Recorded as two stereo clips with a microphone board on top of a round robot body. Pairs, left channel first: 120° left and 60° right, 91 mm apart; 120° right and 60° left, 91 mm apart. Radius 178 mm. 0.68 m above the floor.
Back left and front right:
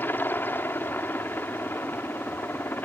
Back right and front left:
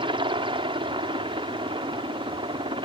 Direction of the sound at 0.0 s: 55° left.